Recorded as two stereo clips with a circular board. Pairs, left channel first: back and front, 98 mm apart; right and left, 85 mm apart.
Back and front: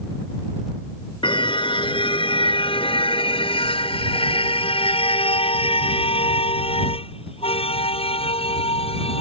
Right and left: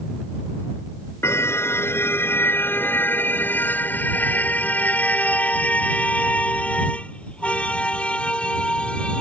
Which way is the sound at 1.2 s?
150° right.